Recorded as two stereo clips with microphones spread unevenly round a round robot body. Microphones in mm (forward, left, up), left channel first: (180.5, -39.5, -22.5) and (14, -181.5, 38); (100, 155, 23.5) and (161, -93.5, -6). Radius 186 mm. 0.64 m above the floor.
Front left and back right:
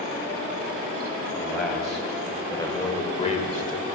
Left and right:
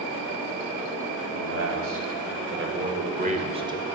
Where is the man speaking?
50° right, 4 m; by 3.9 s straight ahead, 2 m.